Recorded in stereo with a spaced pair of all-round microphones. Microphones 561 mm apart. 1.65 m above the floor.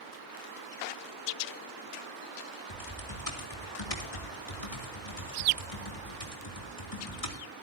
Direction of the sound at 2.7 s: 80° left.